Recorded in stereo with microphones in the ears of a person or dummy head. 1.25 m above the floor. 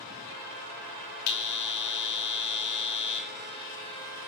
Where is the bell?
55° left (ahead or behind), 5 m.